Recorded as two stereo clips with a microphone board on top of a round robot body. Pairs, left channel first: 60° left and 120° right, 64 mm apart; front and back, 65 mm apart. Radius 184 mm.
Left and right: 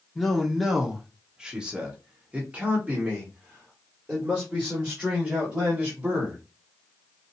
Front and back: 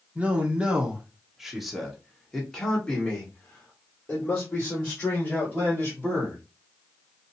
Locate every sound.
0.1 s a man speaking: 145° left, 1.5 m; by 6.4 s 60° right, 3 m